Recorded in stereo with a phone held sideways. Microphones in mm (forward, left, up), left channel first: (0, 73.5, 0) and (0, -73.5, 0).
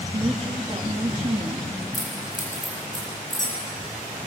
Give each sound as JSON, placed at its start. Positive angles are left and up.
{"t": 0.1, "sound": "a woman speaking", "side_deg": -35, "distance_m": 2.5}
{"t": 1.9, "sound": "keys jangling", "side_deg": 60, "distance_m": 7.5}